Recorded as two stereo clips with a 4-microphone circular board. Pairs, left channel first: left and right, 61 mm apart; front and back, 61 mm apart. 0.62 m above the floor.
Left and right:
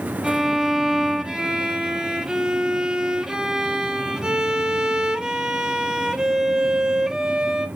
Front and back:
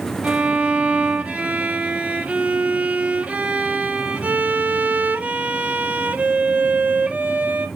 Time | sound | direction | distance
0.2 | a violin | 150° right | 1.1 m